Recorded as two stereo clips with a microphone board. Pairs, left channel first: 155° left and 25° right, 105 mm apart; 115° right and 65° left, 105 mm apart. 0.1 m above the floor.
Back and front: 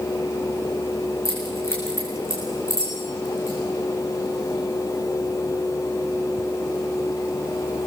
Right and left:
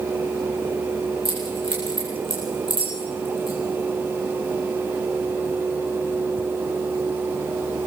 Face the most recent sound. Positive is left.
turn(degrees=100)